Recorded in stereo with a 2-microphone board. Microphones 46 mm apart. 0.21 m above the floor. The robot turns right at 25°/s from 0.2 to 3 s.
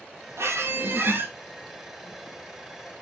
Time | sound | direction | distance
0.4 | a squeak | 70° right (ahead or behind) | 0.6 m